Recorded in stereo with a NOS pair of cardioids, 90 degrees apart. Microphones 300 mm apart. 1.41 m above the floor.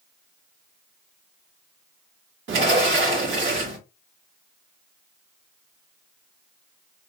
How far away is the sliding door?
About 2 m.